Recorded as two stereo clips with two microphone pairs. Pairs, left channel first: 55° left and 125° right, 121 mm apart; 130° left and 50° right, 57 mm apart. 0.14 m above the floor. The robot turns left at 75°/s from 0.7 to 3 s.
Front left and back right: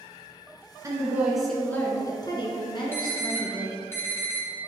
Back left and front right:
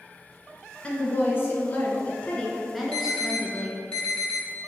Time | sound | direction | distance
0.8 | a woman speaking | 175° right | 1.6 m
2.9 | an alarm | 95° left | 2.5 m